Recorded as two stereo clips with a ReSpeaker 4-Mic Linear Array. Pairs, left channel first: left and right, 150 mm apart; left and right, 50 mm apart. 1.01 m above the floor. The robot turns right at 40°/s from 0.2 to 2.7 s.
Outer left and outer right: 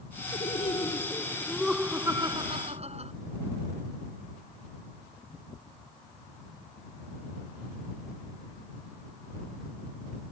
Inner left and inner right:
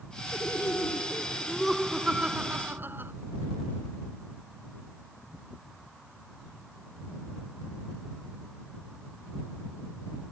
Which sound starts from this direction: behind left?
Laughter, at 0.3 s.